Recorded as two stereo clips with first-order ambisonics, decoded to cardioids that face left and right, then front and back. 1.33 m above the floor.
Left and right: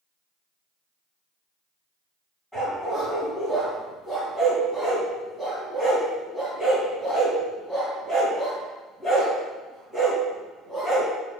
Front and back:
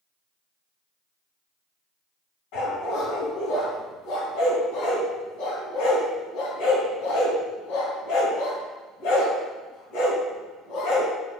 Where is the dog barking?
5° left, 3 m.